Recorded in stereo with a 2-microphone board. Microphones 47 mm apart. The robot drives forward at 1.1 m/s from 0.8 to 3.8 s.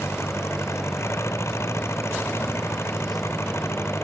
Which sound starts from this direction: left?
An engine running, at 0.0 s.